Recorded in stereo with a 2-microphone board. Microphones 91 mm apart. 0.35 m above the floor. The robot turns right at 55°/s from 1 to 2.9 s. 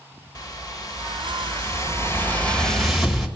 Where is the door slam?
No door slam in this recording.